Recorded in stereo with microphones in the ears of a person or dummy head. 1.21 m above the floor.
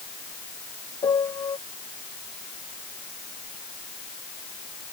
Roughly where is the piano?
Centre.